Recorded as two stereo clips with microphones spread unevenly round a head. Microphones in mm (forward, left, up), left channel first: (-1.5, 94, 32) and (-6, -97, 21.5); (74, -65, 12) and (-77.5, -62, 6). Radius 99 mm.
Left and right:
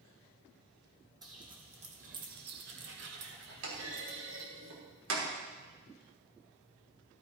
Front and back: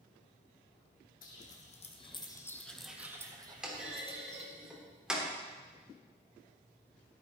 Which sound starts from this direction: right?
A clunk, at 3.6 s.